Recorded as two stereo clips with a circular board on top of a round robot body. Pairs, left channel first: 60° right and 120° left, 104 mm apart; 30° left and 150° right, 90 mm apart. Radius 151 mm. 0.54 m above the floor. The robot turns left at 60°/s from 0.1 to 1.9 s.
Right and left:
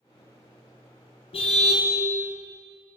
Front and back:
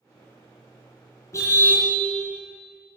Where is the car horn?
25° right, 3.5 m; by 1.9 s 55° right, 3.5 m.